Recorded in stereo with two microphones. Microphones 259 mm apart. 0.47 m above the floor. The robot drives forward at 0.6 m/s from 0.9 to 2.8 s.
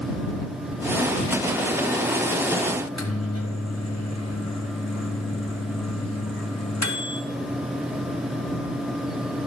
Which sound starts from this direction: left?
A microwave, at 2.8 s.